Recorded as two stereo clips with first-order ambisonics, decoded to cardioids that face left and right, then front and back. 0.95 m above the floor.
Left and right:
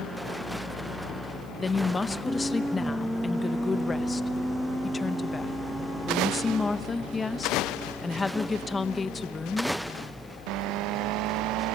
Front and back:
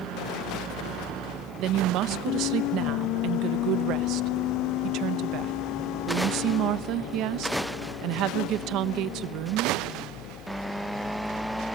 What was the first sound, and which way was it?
A woman speaking, 160° left.